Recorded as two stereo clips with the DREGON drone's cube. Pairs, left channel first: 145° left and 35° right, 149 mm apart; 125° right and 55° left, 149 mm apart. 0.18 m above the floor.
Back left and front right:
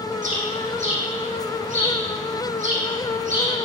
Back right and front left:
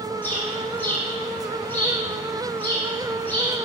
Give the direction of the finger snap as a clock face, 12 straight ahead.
I don't hear a finger snap.